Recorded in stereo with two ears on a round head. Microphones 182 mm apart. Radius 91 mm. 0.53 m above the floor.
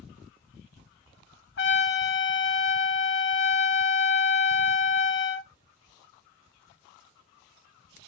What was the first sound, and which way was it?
A trumpet, 60° left (ahead or behind).